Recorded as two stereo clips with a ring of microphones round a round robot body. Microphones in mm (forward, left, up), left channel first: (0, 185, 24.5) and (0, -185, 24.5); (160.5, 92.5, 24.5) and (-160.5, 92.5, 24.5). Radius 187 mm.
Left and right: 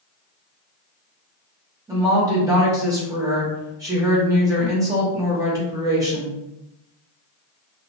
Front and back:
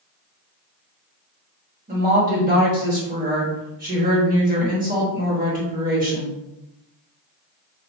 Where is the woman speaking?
160° right, 0.9 m.